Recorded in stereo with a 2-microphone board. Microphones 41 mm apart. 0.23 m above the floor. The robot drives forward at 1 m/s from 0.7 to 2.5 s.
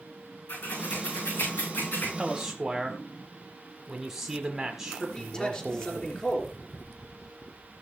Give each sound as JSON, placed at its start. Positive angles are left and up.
{"t": 0.5, "sound": "scissors", "side_deg": 85, "distance_m": 8.0}
{"t": 2.2, "sound": "a man speaking", "side_deg": -15, "distance_m": 1.0}
{"t": 5.0, "sound": "a man speaking", "side_deg": 25, "distance_m": 3.5}